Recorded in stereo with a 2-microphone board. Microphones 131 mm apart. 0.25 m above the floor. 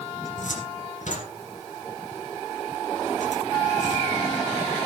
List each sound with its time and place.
0.2 s a cupboard door: 70° left (ahead or behind), 2.5 m